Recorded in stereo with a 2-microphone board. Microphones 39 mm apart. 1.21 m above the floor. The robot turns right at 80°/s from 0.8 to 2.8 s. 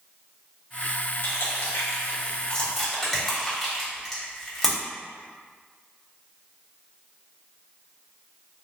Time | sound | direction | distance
1.2 | crushing | 55° left (ahead or behind) | 1.1 m